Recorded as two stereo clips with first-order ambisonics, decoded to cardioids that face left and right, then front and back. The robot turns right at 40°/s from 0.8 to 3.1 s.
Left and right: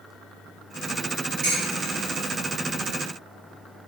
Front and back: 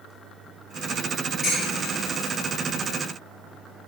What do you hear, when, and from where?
1.4 s dishes clattering: 70° right, 1.8 m; by 1.9 s 50° right, 1.8 m